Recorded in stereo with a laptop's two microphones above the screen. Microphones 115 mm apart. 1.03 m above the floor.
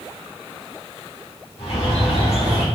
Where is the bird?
55° left (ahead or behind), 1.1 m.